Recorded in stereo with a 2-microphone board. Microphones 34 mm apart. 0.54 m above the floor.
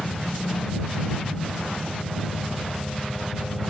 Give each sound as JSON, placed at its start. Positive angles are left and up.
{"t": 0.0, "sound": "a helicopter", "side_deg": 20}